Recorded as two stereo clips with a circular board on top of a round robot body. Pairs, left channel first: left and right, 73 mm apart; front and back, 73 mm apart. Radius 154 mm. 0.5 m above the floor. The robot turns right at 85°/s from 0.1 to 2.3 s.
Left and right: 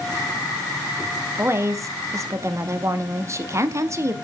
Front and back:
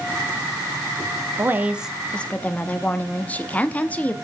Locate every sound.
1.4 s a woman speaking: 140° right, 1.1 m; by 4.1 s 60° right, 1.1 m